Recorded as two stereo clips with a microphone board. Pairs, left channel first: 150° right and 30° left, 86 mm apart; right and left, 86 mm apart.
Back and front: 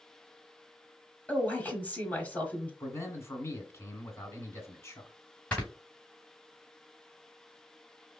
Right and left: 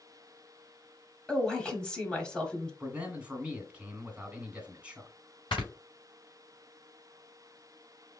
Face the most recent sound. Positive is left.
turn(degrees=-70)